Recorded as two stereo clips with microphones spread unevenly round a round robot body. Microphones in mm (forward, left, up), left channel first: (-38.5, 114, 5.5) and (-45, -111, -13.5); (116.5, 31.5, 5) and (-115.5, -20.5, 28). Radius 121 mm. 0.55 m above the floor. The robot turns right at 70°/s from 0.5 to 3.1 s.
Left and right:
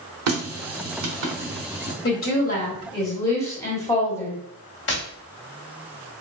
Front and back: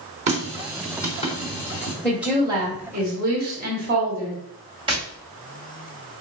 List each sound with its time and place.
0.3 s a running tap: 105° right, 0.9 m; by 1.9 s straight ahead, 0.9 m
2.0 s a woman speaking: 90° left, 1.4 m; by 4.4 s 165° left, 1.4 m
4.9 s tapping: 125° left, 1.6 m